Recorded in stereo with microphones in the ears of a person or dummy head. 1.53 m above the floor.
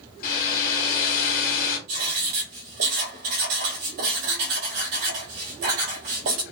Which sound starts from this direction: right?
Writing, at 1.9 s.